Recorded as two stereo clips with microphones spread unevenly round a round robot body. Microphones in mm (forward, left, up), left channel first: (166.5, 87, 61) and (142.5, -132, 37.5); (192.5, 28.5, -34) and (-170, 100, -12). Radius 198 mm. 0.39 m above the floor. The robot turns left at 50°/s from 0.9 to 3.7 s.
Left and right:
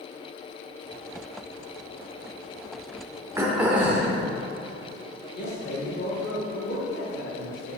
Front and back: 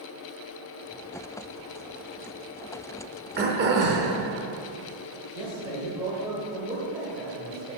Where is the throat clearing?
145° right, 0.8 m; by 4.2 s 165° right, 0.8 m.